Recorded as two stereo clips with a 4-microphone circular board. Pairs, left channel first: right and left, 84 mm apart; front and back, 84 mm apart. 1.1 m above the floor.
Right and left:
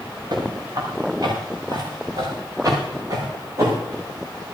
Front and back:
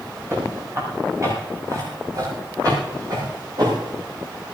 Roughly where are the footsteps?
Behind left.